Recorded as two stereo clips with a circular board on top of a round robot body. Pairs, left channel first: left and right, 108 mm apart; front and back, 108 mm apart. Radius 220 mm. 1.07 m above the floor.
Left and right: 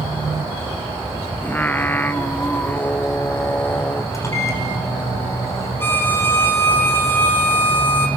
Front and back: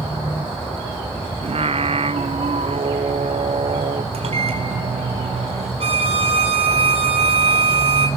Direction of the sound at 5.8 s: 160° left.